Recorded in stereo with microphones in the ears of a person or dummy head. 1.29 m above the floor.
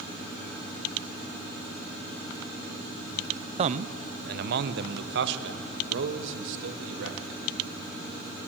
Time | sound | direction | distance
3.6 | a man speaking | 35° right (ahead or behind) | 0.5 m